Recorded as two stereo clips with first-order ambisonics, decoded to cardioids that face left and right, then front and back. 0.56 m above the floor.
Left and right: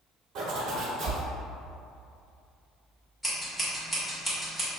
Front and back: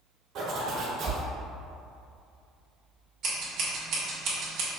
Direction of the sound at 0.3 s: 130° right.